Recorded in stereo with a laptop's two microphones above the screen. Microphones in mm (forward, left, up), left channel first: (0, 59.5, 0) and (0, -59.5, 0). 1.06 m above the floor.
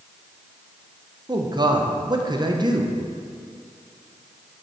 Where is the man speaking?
35° right (ahead or behind), 0.7 m.